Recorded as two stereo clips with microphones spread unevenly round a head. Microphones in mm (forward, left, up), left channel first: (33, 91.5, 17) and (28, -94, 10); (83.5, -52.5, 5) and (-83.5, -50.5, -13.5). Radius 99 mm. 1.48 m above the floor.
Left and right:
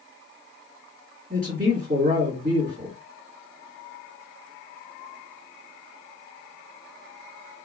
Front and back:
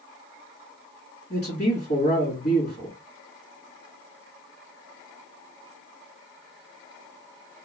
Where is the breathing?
No breathing in this recording.